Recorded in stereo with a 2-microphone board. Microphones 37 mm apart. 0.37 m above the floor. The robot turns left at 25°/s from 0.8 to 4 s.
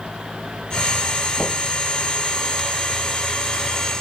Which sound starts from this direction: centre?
Knocking, at 1.4 s.